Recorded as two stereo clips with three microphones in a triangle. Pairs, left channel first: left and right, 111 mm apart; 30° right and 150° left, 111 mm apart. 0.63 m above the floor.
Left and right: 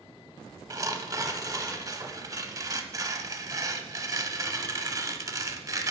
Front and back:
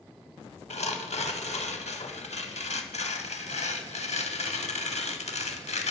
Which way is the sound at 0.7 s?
30° right.